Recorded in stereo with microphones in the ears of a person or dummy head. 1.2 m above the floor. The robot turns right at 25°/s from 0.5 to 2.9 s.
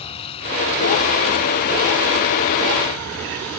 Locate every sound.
0.0 s a vehicle: 35° left (ahead or behind); by 3.6 s 85° left